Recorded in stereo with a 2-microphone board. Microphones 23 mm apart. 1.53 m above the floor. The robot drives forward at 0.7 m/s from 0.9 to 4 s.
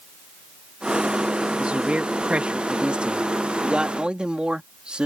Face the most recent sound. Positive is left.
turn(degrees=-50)  # may be behind; listen again after turning